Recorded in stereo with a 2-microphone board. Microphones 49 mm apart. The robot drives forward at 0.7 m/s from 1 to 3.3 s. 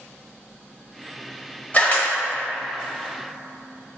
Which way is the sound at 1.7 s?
30° left (ahead or behind).